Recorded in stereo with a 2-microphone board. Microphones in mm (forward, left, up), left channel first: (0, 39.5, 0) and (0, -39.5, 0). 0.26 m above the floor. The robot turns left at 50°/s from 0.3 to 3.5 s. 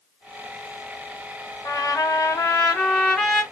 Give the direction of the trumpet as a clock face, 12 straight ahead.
9 o'clock.